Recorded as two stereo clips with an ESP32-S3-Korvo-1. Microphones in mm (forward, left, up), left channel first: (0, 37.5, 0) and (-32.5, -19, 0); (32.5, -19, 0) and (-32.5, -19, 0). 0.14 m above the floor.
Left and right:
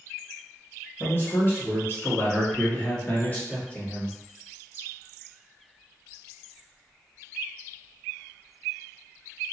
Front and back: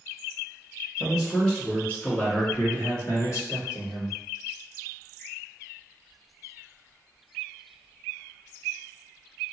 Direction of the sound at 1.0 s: 85° left.